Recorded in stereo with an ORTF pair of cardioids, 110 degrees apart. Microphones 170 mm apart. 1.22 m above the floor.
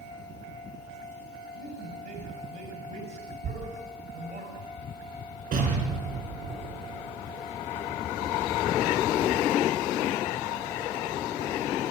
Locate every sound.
1.5 s a man speaking: 65° right, 5.5 m
3.4 s a thud: 55° right, 4.5 m
5.5 s an explosion: 60° right, 6 m